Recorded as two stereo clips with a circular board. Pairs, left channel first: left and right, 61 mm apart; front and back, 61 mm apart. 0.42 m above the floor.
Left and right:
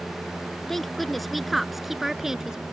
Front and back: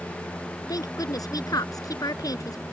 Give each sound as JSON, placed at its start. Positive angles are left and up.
{"t": 0.7, "sound": "a woman speaking", "azimuth_deg": 5}